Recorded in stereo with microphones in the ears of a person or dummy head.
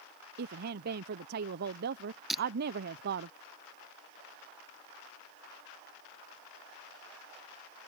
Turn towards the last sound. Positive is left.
turn(degrees=0)  # may be behind; listen again after turning